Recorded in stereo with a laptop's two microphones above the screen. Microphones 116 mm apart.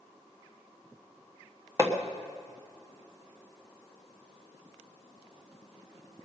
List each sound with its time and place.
1.8 s hammering: 25° right (ahead or behind), 1.1 m